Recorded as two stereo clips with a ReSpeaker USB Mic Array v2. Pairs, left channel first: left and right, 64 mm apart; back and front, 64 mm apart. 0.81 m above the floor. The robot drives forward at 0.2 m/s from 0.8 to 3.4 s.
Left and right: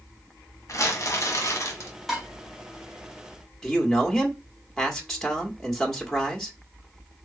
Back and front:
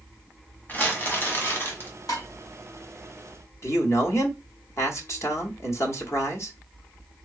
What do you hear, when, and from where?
0.7 s crumpling: 120° left, 1.3 m; by 1.9 s 130° left, 1.4 m
2.1 s dishes clattering: straight behind, 1.8 m
3.6 s a man speaking: 170° left, 1.3 m